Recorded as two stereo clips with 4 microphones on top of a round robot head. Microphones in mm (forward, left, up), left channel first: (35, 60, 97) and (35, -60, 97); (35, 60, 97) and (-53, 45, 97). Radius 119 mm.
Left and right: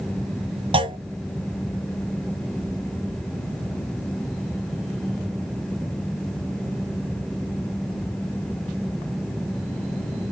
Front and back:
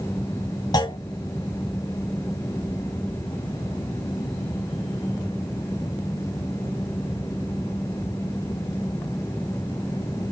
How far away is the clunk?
About 1.2 m.